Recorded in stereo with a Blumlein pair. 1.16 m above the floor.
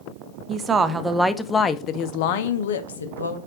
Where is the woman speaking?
25° right, 0.9 m; by 3.4 s 75° left, 1.0 m.